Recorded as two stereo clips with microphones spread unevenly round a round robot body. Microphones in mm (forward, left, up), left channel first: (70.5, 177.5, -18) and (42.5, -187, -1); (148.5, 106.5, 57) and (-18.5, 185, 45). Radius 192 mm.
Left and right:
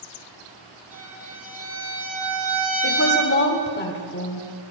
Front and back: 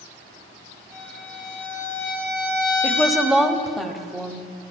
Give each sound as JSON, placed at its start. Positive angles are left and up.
{"t": 0.9, "sound": "a violin", "azimuth_deg": -125, "distance_m": 6.0}
{"t": 2.8, "sound": "a woman speaking", "azimuth_deg": 70, "distance_m": 1.0}